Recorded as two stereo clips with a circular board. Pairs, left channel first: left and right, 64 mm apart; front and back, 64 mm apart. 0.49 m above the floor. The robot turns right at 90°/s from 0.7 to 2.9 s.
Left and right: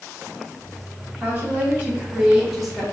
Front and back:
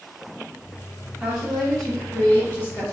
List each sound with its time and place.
1.2 s a woman speaking: 130° right, 0.9 m; by 2.8 s 20° left, 0.9 m